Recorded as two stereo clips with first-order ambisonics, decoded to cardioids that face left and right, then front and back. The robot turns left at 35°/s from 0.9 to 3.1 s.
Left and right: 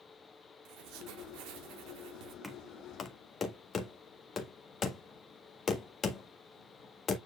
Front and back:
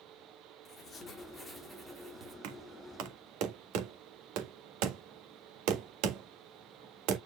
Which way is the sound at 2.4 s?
Straight behind.